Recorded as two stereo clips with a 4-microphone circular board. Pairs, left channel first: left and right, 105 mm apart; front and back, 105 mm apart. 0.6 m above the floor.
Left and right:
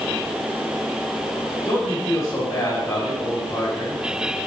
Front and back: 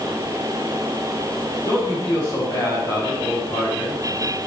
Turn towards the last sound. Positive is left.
turn(degrees=40)